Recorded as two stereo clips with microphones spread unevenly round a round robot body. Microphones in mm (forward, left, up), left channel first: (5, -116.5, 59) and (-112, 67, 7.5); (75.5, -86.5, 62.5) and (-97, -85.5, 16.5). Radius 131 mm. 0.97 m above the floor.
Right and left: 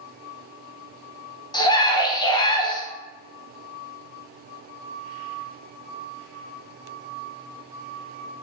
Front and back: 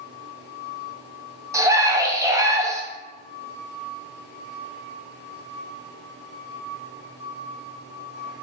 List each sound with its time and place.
1.5 s a scream: 135° right, 0.8 m